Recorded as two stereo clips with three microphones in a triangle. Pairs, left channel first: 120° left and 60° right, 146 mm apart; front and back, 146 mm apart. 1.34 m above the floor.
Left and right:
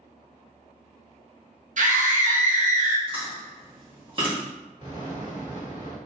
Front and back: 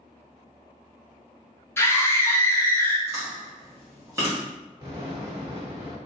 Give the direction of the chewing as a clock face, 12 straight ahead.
4 o'clock.